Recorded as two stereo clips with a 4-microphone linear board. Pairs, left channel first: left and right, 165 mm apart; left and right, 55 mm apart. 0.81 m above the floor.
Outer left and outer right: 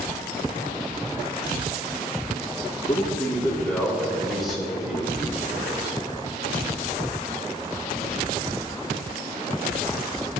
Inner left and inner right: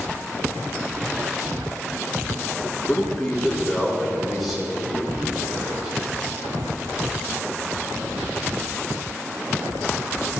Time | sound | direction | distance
2.9 | a man speaking | 25° left (ahead or behind) | 2 m